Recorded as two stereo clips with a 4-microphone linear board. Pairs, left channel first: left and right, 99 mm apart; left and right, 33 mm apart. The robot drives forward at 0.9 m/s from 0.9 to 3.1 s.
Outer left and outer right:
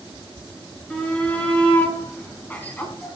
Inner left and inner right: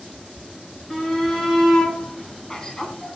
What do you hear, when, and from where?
0.9 s a shout: 10° left (ahead or behind), 4 m; by 3.2 s 20° left (ahead or behind), 2.5 m